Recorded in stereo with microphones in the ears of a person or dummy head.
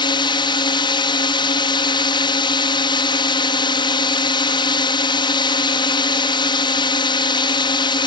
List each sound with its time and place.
0.0 s a drone: 25° left (ahead or behind)